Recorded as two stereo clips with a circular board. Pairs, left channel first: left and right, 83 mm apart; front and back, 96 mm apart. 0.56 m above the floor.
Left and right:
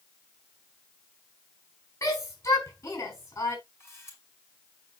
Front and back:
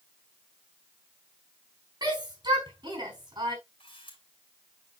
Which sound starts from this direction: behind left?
A shout, at 2.0 s.